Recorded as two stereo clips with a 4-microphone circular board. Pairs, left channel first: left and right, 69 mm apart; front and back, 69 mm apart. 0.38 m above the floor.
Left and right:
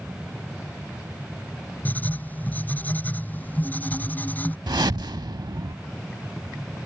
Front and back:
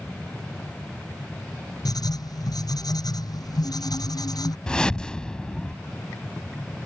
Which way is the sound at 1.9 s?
25° left.